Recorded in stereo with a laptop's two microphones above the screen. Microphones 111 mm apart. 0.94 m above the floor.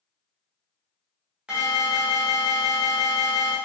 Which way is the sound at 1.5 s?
10° right (ahead or behind).